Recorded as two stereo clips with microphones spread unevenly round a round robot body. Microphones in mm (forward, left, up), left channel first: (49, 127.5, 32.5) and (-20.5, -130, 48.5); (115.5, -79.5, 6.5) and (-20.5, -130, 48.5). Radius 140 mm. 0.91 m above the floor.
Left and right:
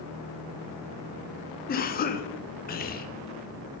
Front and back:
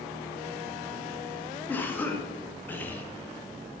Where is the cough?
65° left, 0.8 m.